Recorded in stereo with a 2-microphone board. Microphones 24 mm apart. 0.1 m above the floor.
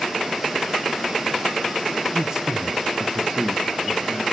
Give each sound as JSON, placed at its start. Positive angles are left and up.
{"t": 2.1, "sound": "a man speaking", "side_deg": -20, "distance_m": 1.2}